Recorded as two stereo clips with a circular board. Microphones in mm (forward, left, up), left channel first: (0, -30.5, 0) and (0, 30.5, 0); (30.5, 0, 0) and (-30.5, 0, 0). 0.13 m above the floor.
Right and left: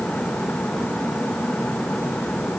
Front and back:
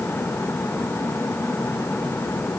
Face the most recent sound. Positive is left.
No sound to turn to.